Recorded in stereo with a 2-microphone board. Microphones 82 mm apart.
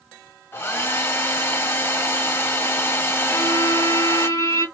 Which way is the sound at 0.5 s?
30° left (ahead or behind).